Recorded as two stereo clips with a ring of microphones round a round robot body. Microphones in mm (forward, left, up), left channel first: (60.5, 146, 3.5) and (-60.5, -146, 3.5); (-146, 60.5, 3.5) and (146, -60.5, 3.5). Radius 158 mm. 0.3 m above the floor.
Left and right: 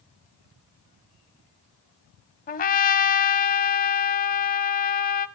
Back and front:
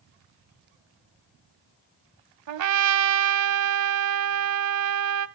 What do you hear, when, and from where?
2.5 s a trumpet: 5° left, 0.9 m